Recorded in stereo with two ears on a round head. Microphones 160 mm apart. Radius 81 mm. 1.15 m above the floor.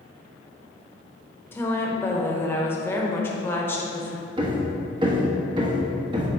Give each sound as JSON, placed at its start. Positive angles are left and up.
{"t": 1.5, "sound": "a woman speaking", "side_deg": 15, "distance_m": 1.1}
{"t": 4.4, "sound": "hammering", "side_deg": -25, "distance_m": 1.0}